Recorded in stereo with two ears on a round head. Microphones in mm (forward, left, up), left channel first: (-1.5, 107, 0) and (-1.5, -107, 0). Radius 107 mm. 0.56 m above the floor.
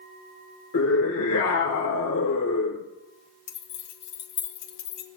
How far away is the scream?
About 1.3 m.